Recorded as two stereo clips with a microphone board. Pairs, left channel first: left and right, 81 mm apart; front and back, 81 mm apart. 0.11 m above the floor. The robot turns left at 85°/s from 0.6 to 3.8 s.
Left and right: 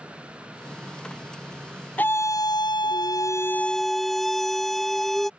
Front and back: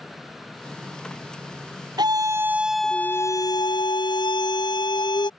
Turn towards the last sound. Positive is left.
turn(degrees=5)